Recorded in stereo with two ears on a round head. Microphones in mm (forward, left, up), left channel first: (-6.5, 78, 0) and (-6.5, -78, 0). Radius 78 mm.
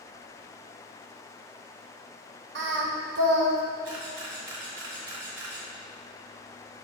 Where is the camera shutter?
75° right (ahead or behind), 2 m.